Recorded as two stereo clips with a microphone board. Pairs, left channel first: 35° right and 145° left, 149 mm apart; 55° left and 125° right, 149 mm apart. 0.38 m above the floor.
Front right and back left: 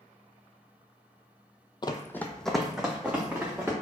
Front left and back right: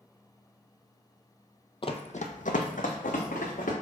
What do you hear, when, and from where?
1.8 s running footsteps: 15° left, 0.5 m; by 3.7 s 70° left, 1.7 m